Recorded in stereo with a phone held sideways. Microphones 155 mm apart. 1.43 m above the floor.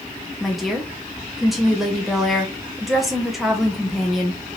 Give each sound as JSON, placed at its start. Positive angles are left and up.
{"t": 0.4, "sound": "a woman speaking", "side_deg": 0, "distance_m": 0.8}